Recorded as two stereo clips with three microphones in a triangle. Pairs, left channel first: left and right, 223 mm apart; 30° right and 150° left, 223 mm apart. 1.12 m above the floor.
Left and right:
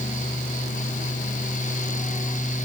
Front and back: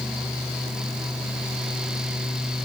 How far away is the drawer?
No drawer in this recording.